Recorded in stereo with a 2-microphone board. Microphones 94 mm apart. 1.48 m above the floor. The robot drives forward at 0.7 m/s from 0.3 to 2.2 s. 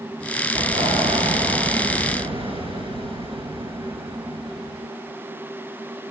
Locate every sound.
0.6 s an explosion: 80° right, 4.5 m; by 4.9 s 75° right (ahead or behind), 4.5 m